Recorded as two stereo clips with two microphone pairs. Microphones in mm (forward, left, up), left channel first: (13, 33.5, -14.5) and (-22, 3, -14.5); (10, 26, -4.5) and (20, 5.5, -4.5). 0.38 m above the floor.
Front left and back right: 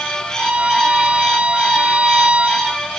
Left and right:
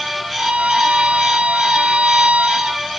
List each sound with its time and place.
0.4 s a violin: 75° right